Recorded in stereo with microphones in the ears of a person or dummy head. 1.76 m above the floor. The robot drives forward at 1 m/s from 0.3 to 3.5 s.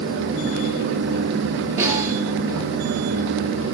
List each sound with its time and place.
1.8 s a snare drum: 15° right (ahead or behind), 6 m